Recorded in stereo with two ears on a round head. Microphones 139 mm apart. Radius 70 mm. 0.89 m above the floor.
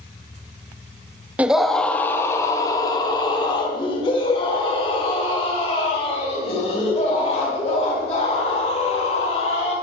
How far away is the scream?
About 0.8 m.